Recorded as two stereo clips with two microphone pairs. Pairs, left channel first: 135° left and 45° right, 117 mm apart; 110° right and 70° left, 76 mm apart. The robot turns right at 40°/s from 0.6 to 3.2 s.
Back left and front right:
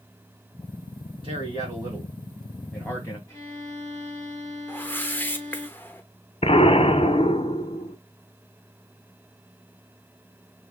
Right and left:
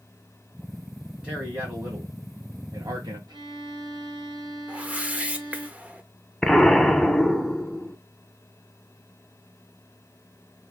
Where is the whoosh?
100° left, 0.9 m.